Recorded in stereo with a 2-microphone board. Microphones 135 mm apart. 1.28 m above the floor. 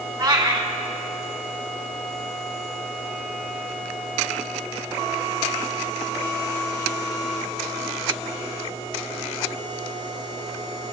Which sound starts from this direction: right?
A cat meowing, at 0.2 s.